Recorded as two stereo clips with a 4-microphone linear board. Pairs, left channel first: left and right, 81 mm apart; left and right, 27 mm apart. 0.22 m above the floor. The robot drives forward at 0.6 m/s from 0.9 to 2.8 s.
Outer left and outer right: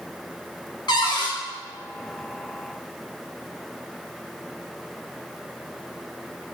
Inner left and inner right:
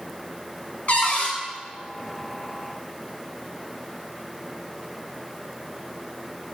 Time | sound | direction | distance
0.9 | a cupboard door | 55° left (ahead or behind) | 0.9 m